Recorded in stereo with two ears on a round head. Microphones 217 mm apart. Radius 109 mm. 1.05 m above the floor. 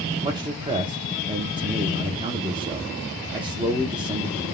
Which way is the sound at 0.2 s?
20° right (ahead or behind).